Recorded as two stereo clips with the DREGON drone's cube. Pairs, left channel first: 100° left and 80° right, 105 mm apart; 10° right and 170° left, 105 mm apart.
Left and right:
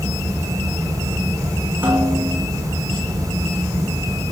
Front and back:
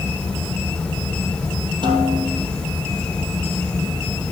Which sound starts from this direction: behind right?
A snare drum, at 1.8 s.